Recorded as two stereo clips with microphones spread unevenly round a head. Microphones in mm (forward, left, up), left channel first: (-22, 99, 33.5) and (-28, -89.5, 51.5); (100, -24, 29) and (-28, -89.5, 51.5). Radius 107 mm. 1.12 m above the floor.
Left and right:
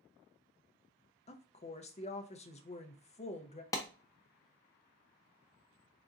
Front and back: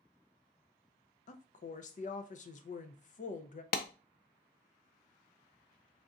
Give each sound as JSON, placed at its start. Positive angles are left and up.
{"t": 1.3, "sound": "a woman speaking", "azimuth_deg": 40, "distance_m": 0.6}
{"t": 3.7, "sound": "a clap", "azimuth_deg": 15, "distance_m": 0.5}